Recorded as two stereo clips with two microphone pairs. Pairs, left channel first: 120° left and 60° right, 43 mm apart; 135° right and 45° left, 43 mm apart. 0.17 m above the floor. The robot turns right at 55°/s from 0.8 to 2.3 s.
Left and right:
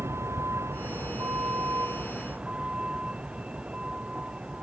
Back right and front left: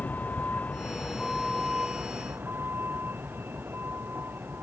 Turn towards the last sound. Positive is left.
turn(degrees=5)